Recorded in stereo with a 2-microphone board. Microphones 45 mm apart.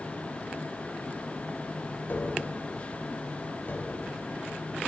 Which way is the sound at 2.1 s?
50° left (ahead or behind).